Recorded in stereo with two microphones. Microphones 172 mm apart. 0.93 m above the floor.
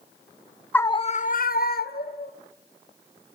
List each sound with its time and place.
0.7 s a scream: 10° left (ahead or behind), 0.6 m; by 2.3 s 65° left (ahead or behind), 1.7 m